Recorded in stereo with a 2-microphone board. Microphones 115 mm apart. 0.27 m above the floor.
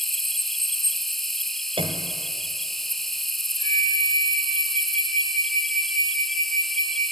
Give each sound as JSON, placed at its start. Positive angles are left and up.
{"t": 0.0, "sound": "an insect", "side_deg": 0, "distance_m": 0.9}
{"t": 1.8, "sound": "a piano", "side_deg": -50, "distance_m": 1.8}
{"t": 3.6, "sound": "a flute", "side_deg": 50, "distance_m": 9.5}